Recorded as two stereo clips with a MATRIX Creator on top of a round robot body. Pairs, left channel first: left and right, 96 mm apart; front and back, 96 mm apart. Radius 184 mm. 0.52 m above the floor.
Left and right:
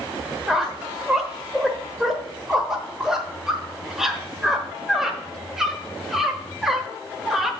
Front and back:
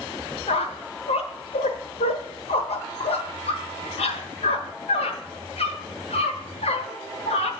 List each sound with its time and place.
0.5 s a squeak: 5° right, 1.2 m